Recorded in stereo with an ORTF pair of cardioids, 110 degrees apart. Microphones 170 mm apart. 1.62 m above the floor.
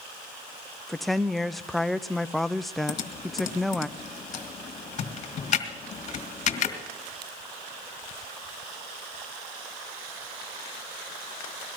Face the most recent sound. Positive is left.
turn(degrees=45)